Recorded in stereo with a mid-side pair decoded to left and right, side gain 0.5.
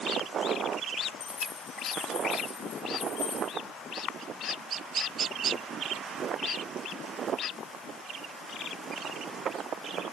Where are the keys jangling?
45° left, 6 m; by 3.5 s 70° left, 6 m.